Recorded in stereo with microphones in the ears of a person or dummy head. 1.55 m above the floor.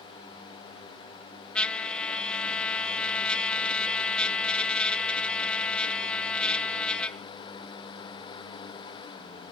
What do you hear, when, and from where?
1.6 s a trumpet: 5° left (ahead or behind), 0.5 m